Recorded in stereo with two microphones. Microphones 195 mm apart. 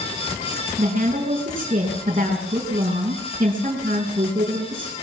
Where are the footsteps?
No footsteps in this recording.